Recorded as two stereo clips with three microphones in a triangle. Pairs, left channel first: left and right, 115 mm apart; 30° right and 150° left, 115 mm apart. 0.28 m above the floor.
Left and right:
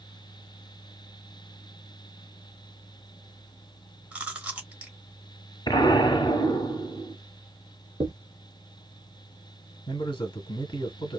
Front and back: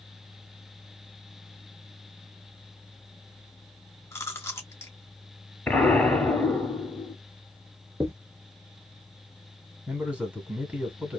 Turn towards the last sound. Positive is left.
turn(degrees=80)